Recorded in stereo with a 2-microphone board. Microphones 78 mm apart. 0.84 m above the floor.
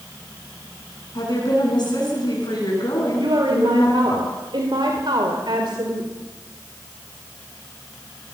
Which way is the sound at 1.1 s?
60° left (ahead or behind).